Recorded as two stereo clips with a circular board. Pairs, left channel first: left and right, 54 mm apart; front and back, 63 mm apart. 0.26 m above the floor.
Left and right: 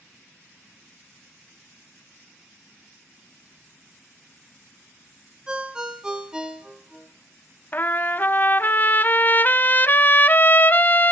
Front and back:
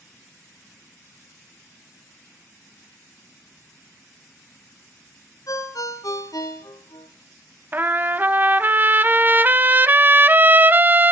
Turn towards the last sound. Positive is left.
turn(degrees=130)